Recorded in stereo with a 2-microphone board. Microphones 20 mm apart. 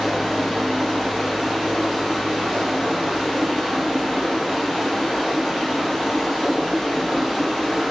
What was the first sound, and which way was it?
Running water, 5° left (ahead or behind).